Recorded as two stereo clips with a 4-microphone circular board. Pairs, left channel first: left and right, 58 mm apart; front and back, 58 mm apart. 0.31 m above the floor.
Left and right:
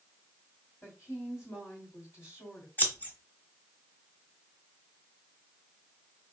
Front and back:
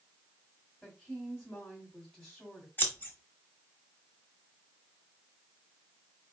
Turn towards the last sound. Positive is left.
turn(degrees=45)